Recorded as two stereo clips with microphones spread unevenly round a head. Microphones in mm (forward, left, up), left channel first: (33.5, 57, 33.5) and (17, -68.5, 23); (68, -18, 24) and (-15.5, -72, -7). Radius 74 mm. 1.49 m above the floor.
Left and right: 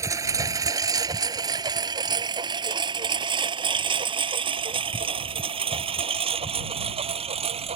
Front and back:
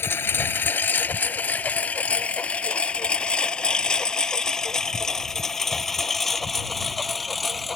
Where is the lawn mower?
30° right; by 7.8 s 55° right.